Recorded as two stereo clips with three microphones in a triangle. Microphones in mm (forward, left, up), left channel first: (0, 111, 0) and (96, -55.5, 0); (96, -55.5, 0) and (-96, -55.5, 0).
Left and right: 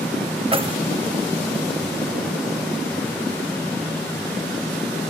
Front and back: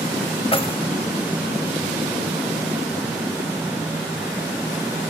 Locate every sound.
0.5 s keys jangling: 30° right, 0.8 m